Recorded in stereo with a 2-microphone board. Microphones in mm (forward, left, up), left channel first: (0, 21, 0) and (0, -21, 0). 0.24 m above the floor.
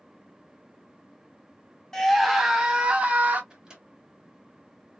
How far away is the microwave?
About 1.4 m.